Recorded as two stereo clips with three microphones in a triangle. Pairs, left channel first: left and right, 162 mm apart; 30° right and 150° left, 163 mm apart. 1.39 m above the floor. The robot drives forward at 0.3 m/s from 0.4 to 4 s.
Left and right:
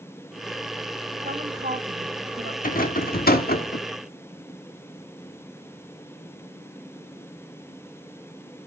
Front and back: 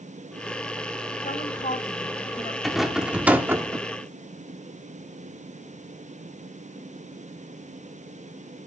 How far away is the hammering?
No hammering in this recording.